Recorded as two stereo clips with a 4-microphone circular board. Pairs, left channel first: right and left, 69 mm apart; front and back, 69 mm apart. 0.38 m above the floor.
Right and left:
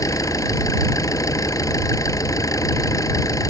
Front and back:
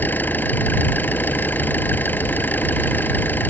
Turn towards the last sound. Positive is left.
turn(degrees=-60)